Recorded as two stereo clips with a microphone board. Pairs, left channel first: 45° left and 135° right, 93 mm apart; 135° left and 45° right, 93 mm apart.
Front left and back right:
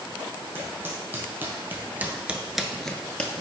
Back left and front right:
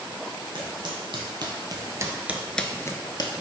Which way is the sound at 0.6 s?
70° right.